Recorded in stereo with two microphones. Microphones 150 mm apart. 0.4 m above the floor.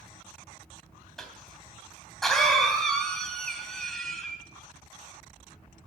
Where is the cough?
5° left (ahead or behind), 2.5 m.